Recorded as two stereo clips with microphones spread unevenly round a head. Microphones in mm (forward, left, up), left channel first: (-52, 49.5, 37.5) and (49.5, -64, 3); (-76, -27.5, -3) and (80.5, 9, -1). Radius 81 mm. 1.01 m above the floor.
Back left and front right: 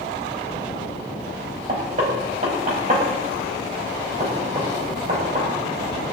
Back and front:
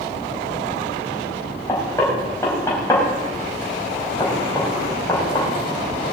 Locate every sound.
1.7 s knocking: 95° right, 5.5 m